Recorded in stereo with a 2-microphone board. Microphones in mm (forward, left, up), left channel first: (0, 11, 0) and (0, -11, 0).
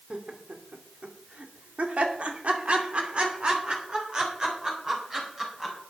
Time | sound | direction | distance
0.1 | laughter | 60° right (ahead or behind) | 2.5 m